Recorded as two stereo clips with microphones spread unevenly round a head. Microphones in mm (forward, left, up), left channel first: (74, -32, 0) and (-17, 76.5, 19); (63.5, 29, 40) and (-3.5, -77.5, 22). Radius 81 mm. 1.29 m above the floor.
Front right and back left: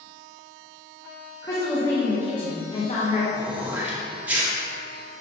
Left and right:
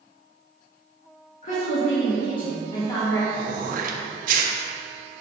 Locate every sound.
1.4 s a woman speaking: 20° left, 1.6 m; by 3.2 s 15° right, 1.2 m
3.3 s throat clearing: 150° right, 0.6 m